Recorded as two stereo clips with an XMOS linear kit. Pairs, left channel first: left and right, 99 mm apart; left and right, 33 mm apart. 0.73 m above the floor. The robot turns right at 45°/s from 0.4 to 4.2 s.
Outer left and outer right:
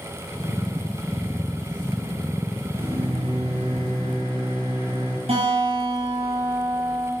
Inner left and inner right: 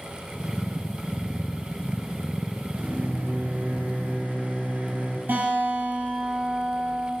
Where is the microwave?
120° right, 4 m; by 5.2 s 55° right, 4 m.